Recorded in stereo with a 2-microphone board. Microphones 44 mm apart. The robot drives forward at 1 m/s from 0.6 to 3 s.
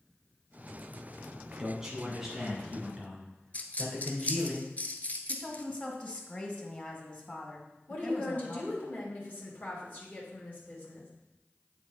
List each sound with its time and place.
1.6 s a man speaking: 10° right (ahead or behind), 1.5 m; by 4.5 s 5° right (ahead or behind), 2.5 m
3.5 s a dropped coin: 35° left (ahead or behind), 0.7 m
5.3 s a woman speaking: 30° left (ahead or behind), 1.4 m
7.9 s a woman speaking: 40° left (ahead or behind), 2.0 m